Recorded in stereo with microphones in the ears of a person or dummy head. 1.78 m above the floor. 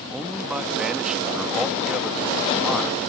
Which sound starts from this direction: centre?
A man speaking, at 0.1 s.